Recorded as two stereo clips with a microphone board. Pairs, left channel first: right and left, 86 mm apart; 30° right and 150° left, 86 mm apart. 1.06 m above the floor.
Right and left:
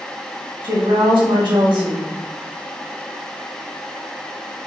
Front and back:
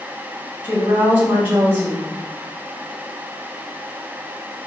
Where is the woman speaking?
80° left, 1.9 m.